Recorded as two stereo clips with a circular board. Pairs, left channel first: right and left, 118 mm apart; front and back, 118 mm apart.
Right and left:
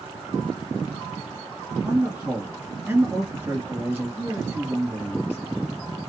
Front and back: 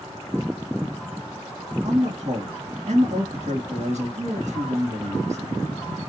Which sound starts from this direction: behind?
A man speaking, at 1.8 s.